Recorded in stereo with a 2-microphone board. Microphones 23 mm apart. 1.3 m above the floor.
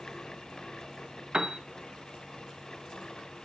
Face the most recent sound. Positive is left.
turn(degrees=-30)  # may be behind; listen again after turning